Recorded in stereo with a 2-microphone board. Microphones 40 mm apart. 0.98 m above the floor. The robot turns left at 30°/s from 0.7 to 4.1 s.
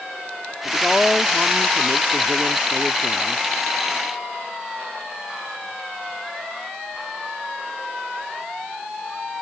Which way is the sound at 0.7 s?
10° left.